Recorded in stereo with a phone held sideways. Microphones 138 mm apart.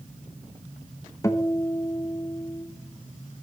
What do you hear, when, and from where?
1.2 s a guitar: 25° left (ahead or behind), 1.0 m